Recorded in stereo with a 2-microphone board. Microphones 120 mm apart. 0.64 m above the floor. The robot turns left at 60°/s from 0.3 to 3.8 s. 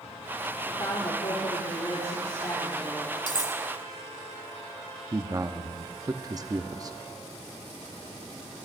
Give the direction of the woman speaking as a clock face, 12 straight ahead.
7 o'clock.